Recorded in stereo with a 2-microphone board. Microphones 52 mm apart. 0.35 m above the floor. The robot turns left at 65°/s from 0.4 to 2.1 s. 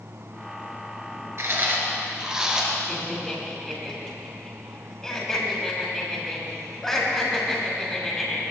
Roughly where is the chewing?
Behind right.